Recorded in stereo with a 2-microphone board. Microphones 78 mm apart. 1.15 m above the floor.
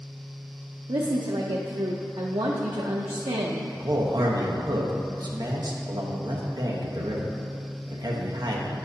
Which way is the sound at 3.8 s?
55° right (ahead or behind).